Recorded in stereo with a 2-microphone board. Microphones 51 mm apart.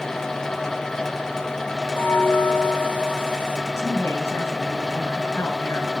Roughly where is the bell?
Left.